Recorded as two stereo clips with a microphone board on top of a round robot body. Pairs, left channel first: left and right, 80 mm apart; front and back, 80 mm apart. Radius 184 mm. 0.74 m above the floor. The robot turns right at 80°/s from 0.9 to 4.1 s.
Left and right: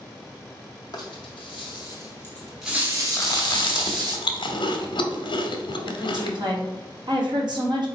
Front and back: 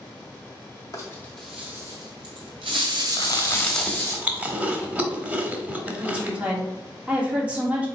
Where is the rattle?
50° left, 0.6 m; by 4.2 s 55° right, 0.6 m.